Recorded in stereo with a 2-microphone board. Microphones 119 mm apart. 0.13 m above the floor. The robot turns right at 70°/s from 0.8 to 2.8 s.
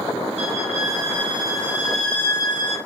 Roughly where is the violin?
Right.